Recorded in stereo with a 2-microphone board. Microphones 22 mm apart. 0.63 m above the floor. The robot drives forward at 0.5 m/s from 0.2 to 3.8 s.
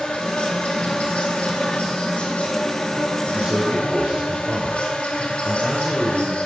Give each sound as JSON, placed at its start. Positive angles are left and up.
{"t": 0.0, "sound": "an insect", "side_deg": 55, "distance_m": 3.0}
{"t": 3.3, "sound": "a man speaking", "side_deg": -65, "distance_m": 2.5}